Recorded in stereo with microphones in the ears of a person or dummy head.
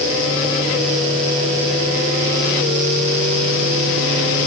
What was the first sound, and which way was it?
Only background noise.